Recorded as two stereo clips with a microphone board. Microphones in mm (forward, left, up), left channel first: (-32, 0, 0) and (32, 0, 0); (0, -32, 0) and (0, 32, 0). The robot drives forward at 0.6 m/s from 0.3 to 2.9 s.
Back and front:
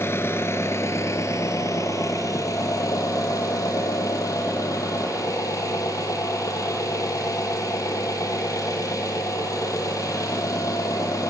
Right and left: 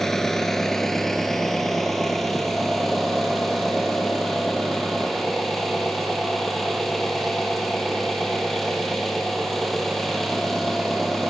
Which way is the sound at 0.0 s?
170° right.